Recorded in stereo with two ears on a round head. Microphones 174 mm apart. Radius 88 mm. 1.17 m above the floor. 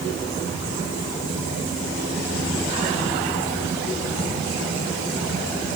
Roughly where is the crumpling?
No crumpling in this recording.